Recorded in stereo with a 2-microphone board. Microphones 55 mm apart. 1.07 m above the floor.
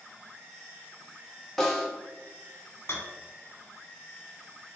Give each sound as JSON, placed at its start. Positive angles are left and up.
{"t": 1.6, "sound": "a snare drum", "side_deg": 5, "distance_m": 1.1}
{"t": 2.9, "sound": "a rattle", "side_deg": 60, "distance_m": 1.1}